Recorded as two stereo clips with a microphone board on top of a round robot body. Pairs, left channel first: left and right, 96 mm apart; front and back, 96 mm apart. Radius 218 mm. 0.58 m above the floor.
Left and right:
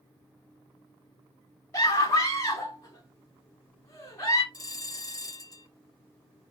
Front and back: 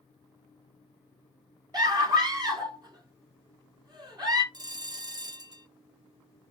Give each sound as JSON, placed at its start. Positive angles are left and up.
{"t": 1.7, "sound": "a scream", "azimuth_deg": 140, "distance_m": 2.5}
{"t": 4.5, "sound": "a bell", "azimuth_deg": 140, "distance_m": 1.2}